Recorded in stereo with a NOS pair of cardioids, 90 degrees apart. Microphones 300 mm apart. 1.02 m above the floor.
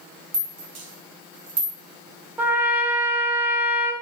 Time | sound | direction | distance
0.3 | a rattle | 55° right | 2 m
2.4 | a trumpet | 5° right | 1.0 m